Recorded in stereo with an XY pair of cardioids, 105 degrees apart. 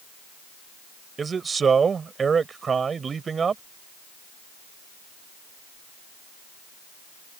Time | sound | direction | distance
1.2 | a man speaking | 40° right | ?